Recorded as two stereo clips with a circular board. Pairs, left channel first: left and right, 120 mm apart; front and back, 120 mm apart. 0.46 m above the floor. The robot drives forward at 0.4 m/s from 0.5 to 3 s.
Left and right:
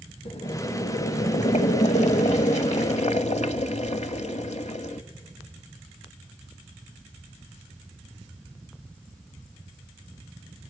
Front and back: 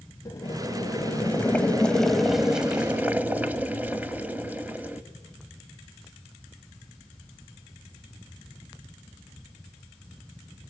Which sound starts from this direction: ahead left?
Boiling, at 0.2 s.